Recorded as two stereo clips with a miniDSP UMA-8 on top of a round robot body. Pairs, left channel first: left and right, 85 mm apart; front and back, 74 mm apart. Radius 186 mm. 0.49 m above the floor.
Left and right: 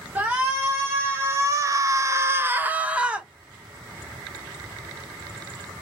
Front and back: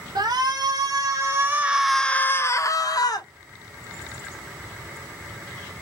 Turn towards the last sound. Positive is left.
turn(degrees=-10)